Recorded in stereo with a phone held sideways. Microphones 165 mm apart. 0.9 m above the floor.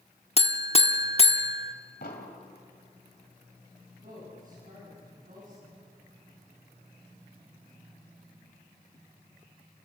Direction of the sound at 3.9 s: 55° right (ahead or behind).